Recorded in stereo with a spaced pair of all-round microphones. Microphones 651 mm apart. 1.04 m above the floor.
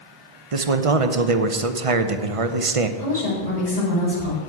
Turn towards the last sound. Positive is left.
turn(degrees=65)  # may be behind; listen again after turning